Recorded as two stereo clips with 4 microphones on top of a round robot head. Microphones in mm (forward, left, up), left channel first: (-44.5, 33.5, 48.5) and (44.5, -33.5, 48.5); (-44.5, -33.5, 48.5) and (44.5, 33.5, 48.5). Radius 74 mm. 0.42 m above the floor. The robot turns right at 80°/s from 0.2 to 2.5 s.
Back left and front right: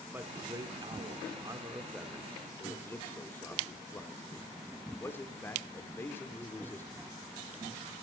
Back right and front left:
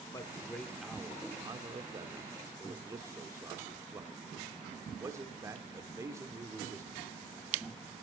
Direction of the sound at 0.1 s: 100° right.